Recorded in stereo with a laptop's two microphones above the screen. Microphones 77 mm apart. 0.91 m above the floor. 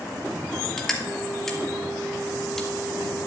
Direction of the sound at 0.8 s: 5° left (ahead or behind).